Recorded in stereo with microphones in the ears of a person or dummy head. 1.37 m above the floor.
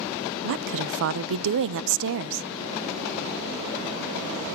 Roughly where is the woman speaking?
Right.